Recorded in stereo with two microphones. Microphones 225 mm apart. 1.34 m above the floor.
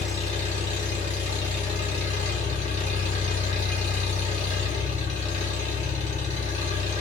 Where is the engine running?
35° left (ahead or behind), 1.3 m.